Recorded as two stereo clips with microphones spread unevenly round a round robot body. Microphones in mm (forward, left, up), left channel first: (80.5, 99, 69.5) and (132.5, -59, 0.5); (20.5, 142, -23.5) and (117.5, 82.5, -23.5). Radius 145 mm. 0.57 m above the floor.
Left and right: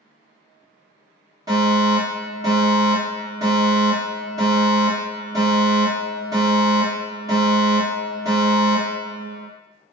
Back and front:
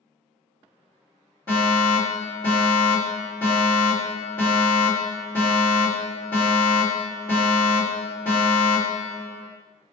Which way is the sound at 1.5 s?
95° right.